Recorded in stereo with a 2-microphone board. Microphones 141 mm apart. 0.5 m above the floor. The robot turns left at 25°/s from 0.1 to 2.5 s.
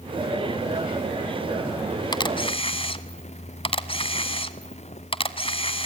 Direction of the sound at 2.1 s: 30° left (ahead or behind).